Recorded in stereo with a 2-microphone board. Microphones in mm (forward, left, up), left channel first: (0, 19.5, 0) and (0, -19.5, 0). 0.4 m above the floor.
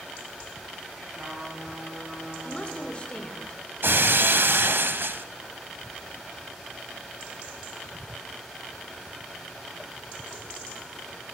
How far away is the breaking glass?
About 0.5 m.